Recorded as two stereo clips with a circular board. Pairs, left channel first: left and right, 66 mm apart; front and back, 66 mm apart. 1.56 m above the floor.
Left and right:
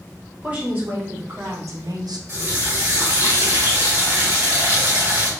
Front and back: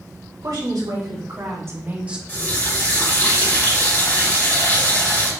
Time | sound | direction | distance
0.4 | a woman speaking | 160° right | 2 m
2.3 | a running tap | 50° right | 1.8 m